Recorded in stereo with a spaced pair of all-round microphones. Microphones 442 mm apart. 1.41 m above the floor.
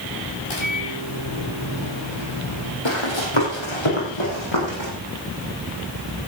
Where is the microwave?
75° left (ahead or behind), 4.5 m.